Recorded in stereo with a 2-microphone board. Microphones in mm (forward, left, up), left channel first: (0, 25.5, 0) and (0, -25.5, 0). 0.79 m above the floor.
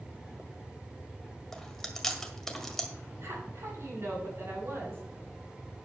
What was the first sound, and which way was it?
Chewing, 5° left (ahead or behind).